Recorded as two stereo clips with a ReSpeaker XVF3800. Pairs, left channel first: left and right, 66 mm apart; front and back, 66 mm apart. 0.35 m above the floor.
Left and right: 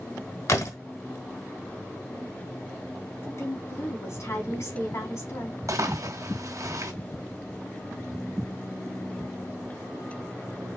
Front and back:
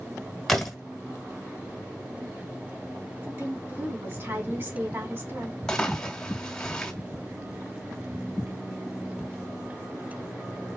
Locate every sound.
0.5 s a door slam: 85° left, 1.5 m
3.2 s a woman speaking: 125° left, 3 m
5.7 s a splash: 80° right, 1.8 m